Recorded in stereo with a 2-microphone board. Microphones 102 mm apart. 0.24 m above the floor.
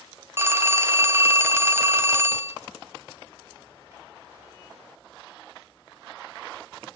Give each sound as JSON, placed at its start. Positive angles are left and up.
{"t": 0.4, "sound": "a phone ringing", "side_deg": -25, "distance_m": 0.6}